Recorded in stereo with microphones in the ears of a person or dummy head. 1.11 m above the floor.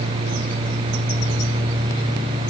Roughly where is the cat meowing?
I don't hear a cat meowing.